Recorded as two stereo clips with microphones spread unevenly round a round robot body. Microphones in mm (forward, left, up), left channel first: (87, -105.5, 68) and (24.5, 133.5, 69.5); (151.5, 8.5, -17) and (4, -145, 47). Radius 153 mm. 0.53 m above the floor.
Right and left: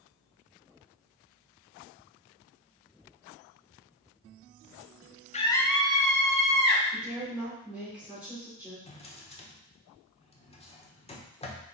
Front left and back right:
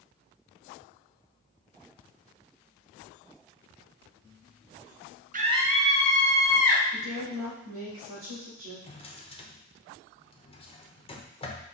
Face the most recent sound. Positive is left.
turn(degrees=-10)